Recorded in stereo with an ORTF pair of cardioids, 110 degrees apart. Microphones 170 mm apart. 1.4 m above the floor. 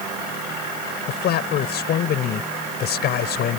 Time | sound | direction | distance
1.1 | a man speaking | 70° left | ?